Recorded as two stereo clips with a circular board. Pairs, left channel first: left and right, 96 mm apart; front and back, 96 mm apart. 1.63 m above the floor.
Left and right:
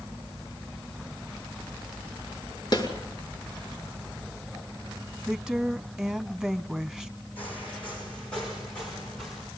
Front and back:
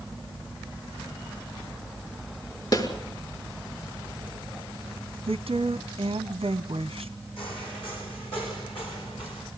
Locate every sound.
2.7 s a snare drum: 40° left, 5 m
5.3 s a woman speaking: 170° right, 0.9 m
7.4 s footsteps: 15° left, 4 m; by 9.5 s 5° left, 6.5 m